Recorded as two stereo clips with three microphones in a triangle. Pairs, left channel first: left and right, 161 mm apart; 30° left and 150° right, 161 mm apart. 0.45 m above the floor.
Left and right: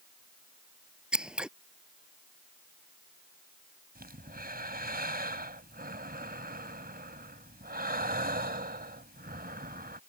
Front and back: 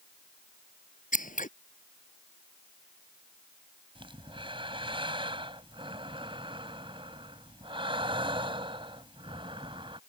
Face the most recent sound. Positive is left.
turn(degrees=-95)